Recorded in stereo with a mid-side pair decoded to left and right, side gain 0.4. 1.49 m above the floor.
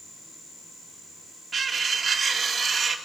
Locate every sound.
1.5 s cutlery clinking: 45° right, 2 m